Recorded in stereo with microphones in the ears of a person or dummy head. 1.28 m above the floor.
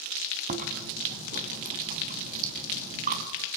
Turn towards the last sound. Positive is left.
turn(degrees=-45)  # may be behind; listen again after turning